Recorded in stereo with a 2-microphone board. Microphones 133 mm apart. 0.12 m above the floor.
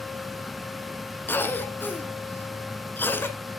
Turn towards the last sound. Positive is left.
turn(degrees=15)  # may be behind; listen again after turning